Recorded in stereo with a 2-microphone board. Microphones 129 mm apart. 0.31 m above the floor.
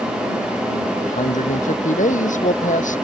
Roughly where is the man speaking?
Left.